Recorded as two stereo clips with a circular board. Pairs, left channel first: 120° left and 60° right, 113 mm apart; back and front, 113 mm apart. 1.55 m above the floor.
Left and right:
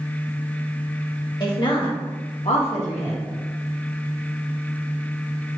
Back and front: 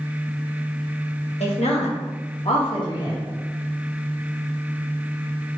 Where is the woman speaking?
170° left, 1.5 m; by 3.2 s 125° left, 1.0 m.